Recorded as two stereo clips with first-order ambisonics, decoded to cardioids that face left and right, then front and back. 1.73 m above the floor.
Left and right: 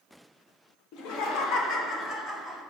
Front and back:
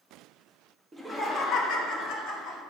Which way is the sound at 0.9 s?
105° left.